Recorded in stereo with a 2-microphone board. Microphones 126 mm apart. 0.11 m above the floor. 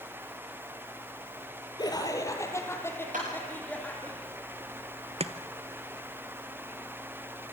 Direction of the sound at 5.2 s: 55° right (ahead or behind).